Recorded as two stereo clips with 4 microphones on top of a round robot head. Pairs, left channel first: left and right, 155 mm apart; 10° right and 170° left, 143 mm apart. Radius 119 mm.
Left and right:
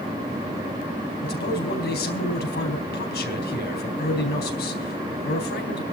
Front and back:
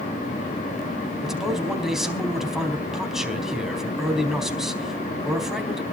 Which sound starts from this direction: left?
A man speaking, at 1.2 s.